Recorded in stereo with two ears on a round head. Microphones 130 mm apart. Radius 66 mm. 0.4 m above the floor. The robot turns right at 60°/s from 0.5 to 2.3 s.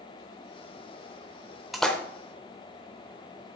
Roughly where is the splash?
Centre.